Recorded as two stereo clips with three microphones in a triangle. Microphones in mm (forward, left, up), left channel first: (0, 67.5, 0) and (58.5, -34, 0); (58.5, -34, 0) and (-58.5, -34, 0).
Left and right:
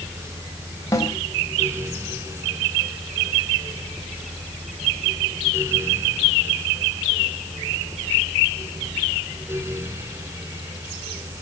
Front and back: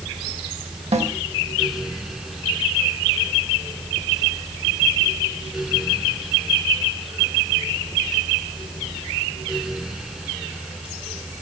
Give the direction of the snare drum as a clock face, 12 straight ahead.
6 o'clock.